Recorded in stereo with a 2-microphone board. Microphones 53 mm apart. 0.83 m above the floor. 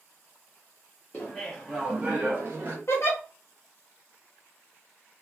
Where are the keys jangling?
I don't hear keys jangling.